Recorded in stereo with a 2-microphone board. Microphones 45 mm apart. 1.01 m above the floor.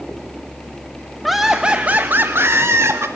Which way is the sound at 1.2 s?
Centre (ahead or behind).